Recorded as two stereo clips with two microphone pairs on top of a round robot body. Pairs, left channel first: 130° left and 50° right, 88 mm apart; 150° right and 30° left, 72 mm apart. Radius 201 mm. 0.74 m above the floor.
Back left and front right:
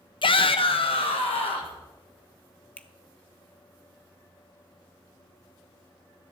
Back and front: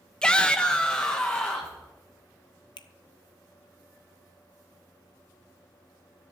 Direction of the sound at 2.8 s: 150° right.